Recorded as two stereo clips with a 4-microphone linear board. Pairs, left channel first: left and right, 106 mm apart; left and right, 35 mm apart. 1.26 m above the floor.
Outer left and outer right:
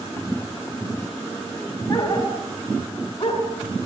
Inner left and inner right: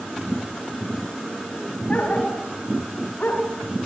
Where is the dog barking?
30° left (ahead or behind), 4 m; by 3.4 s 55° left (ahead or behind), 4 m.